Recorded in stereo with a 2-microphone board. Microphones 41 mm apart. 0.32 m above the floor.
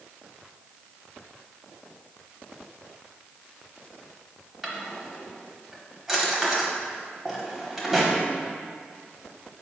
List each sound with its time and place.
4.6 s a drawer: 5° right (ahead or behind), 0.8 m